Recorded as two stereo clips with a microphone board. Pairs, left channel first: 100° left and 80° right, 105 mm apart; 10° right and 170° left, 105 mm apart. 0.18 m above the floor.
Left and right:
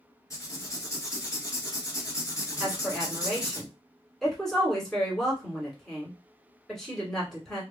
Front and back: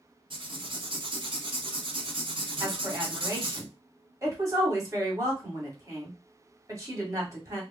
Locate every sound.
0.3 s writing: 150° left, 0.8 m
2.6 s a woman speaking: 175° right, 1.5 m